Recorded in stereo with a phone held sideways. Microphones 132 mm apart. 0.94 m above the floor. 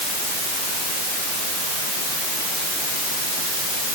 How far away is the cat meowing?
No cat meowing in this recording.